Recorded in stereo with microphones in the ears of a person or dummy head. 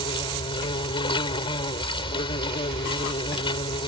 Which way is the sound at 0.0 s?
30° left (ahead or behind).